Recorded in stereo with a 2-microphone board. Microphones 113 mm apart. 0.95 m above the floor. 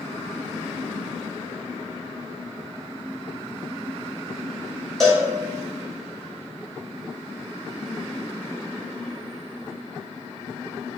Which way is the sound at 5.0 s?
5° left (ahead or behind).